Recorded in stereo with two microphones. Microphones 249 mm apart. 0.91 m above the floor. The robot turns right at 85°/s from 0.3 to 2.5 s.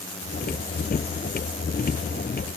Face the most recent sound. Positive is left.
No sound to turn to.